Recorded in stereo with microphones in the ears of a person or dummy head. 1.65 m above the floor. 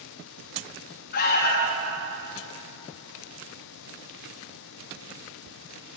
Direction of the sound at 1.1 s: 55° left (ahead or behind).